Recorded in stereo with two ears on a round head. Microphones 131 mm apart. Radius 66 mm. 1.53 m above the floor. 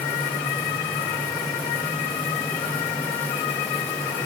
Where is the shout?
No shout in this recording.